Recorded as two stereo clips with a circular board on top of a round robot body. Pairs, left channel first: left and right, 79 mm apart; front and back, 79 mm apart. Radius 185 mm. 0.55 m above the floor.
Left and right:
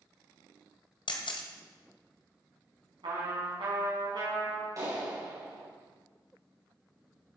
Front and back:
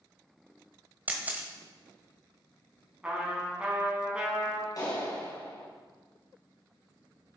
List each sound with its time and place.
1.1 s a camera shutter: 110° left, 1.2 m
3.0 s a trumpet: 105° right, 4.5 m
4.8 s a clap: 45° right, 4 m